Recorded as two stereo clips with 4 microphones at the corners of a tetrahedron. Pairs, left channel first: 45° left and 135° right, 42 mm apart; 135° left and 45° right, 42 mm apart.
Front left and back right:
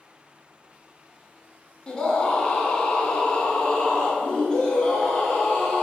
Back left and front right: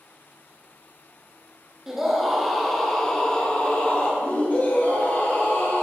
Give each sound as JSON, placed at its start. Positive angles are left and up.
{"t": 1.9, "sound": "a scream", "azimuth_deg": 15, "distance_m": 1.4}